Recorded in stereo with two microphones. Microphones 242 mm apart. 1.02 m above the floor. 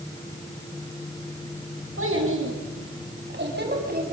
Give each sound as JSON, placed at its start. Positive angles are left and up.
{"t": 2.0, "sound": "a child speaking", "side_deg": -60, "distance_m": 6.0}